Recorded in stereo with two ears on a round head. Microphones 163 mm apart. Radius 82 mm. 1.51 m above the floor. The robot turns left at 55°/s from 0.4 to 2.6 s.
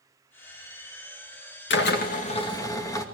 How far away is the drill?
About 2 m.